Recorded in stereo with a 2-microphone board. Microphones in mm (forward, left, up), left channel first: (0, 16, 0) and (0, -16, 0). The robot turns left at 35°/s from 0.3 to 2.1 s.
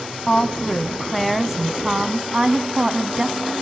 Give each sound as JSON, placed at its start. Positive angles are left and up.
{"t": 0.3, "sound": "a woman speaking", "azimuth_deg": 35, "distance_m": 1.6}